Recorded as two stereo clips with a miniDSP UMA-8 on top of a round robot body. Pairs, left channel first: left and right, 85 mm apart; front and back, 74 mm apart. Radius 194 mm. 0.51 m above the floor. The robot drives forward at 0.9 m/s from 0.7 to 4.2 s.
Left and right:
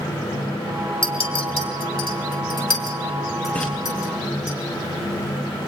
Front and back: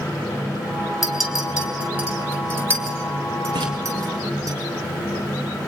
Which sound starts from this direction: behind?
A splash, at 3.5 s.